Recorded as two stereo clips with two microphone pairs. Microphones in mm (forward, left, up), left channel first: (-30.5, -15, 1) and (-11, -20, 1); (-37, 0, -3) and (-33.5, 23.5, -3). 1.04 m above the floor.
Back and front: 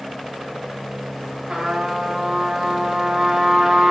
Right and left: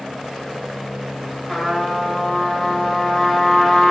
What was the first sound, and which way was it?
A trumpet, 5° right.